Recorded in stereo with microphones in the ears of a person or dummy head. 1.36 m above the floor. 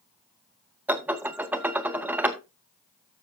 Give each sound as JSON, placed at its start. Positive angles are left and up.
{"t": 0.9, "sound": "dishes clattering", "side_deg": -10, "distance_m": 0.8}